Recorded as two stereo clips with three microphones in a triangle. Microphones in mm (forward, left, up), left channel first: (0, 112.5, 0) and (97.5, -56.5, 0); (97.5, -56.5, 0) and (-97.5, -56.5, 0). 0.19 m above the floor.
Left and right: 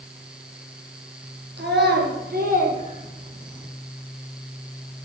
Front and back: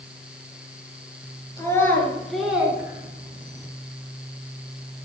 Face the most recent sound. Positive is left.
turn(degrees=-135)